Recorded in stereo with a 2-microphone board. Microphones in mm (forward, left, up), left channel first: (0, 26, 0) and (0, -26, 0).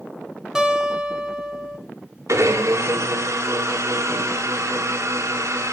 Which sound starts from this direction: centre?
A guitar, at 0.6 s.